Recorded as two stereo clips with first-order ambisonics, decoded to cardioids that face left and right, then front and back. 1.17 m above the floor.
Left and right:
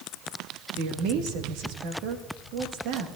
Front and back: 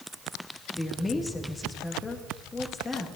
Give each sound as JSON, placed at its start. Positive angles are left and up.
{"t": 0.7, "sound": "a woman speaking", "azimuth_deg": -75, "distance_m": 1.7}